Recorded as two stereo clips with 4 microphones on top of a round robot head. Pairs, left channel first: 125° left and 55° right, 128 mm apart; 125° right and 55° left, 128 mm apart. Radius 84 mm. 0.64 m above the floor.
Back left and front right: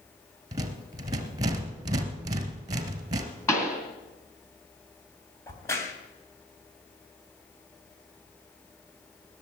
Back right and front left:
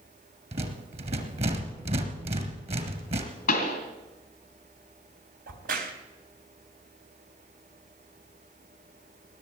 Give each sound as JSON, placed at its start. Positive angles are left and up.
{"t": 0.5, "sound": "a rattle", "azimuth_deg": 10, "distance_m": 2.0}
{"t": 3.5, "sound": "a pop", "azimuth_deg": -160, "distance_m": 2.5}
{"t": 5.5, "sound": "a crack", "azimuth_deg": 60, "distance_m": 3.0}